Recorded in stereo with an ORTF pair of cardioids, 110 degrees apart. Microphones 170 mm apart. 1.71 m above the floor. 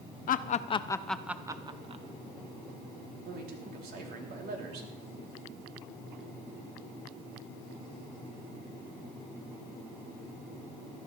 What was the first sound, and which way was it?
Laughter, 55° left.